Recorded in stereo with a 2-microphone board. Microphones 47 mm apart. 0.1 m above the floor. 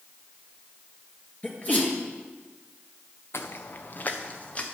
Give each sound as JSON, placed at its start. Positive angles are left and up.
{"t": 1.4, "sound": "a sneeze", "side_deg": 40, "distance_m": 2.5}
{"t": 3.3, "sound": "footsteps", "side_deg": 75, "distance_m": 0.7}